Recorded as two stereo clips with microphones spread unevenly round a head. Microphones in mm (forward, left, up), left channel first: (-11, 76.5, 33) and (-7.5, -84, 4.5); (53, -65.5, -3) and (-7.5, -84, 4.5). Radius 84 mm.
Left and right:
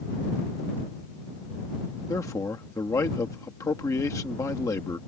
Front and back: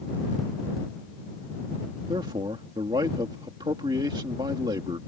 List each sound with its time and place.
2.1 s a man speaking: 165° left